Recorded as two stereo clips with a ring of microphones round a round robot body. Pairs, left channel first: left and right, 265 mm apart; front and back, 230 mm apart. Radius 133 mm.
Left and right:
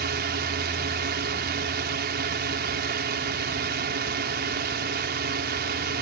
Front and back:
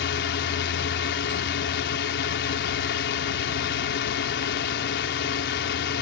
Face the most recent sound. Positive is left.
turn(degrees=-40)